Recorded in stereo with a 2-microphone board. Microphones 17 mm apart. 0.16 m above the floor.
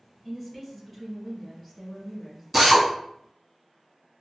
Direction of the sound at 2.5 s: 5° right (ahead or behind).